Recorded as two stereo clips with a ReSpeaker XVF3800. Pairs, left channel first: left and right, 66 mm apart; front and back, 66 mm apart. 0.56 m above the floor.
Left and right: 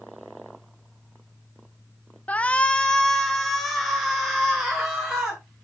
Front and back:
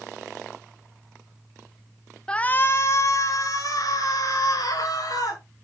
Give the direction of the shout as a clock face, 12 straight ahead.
10 o'clock.